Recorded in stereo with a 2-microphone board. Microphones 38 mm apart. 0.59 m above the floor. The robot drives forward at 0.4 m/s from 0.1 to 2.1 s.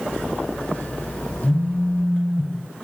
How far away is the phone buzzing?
About 7.5 m.